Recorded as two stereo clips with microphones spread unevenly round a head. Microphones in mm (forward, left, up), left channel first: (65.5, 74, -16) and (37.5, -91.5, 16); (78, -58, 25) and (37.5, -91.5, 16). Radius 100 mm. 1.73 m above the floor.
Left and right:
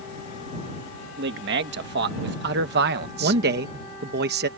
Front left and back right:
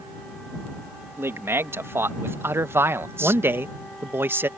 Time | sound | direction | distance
1.2 | a man speaking | 105° right | ?
3.2 | a man speaking | 100° right | ?